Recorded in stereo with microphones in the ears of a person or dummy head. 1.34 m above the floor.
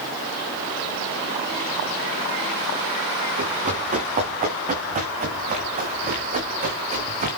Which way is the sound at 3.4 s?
40° right (ahead or behind).